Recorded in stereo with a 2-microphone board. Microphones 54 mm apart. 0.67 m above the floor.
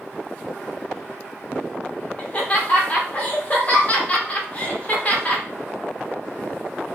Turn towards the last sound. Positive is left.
turn(degrees=30)  # may be behind; listen again after turning